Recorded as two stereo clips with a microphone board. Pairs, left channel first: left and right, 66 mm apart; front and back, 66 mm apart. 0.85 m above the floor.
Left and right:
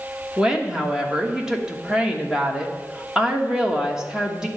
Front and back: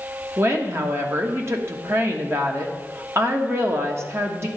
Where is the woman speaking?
165° right, 1.2 m.